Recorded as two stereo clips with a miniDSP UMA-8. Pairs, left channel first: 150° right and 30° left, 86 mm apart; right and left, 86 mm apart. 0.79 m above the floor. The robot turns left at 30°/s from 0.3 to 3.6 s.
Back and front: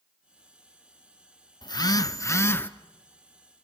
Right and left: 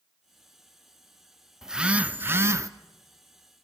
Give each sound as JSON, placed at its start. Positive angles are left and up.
{"t": 1.6, "sound": "a phone buzzing", "azimuth_deg": 175, "distance_m": 0.6}